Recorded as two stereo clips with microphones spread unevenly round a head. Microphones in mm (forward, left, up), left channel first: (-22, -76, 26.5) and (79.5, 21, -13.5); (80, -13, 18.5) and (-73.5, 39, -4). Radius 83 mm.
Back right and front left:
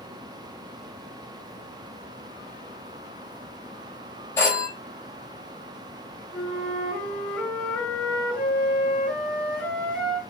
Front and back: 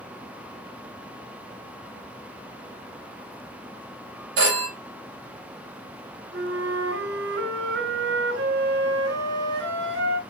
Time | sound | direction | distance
4.4 | a phone ringing | 150° left | 4.5 m
6.3 | a flute | 145° left | 4.5 m